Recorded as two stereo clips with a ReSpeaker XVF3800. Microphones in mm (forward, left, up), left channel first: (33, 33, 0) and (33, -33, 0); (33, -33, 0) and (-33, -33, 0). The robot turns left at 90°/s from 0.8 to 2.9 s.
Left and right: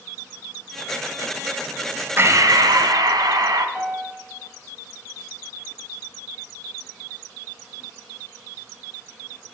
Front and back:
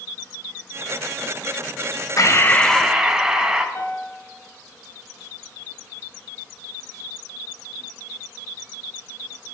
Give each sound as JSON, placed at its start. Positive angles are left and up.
{"t": 2.2, "sound": "breathing", "azimuth_deg": -35, "distance_m": 1.0}
{"t": 3.8, "sound": "a piano", "azimuth_deg": -20, "distance_m": 1.7}